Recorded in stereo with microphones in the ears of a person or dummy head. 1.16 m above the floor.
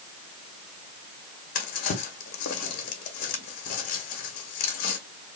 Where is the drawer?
50° left (ahead or behind), 1.4 m.